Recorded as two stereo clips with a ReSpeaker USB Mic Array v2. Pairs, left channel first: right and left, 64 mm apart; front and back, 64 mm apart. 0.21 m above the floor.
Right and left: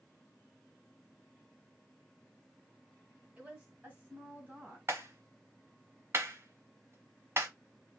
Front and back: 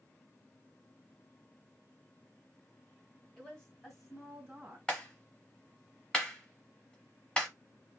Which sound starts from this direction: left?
A clap, at 4.9 s.